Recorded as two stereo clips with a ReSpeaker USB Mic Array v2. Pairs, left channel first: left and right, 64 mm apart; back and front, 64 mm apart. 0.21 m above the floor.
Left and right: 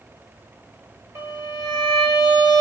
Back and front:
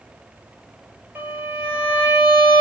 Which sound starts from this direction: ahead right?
A violin, at 1.1 s.